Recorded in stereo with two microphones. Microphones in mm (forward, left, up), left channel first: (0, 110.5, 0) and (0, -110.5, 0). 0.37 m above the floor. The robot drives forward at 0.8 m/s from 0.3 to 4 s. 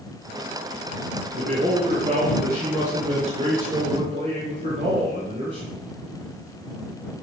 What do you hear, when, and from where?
1.4 s a man speaking: 45° right (ahead or behind), 6 m; by 5.7 s 35° right (ahead or behind), 7.5 m